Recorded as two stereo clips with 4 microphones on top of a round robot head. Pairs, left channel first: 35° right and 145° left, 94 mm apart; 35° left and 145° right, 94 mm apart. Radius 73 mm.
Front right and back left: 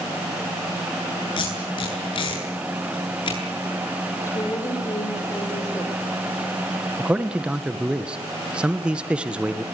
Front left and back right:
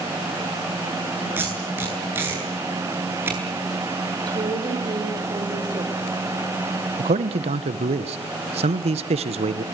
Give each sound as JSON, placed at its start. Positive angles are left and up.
{"t": 1.4, "sound": "tape being pulled", "azimuth_deg": -75, "distance_m": 8.5}
{"t": 4.3, "sound": "a woman speaking", "azimuth_deg": -95, "distance_m": 5.5}
{"t": 7.0, "sound": "a man speaking", "azimuth_deg": -135, "distance_m": 1.8}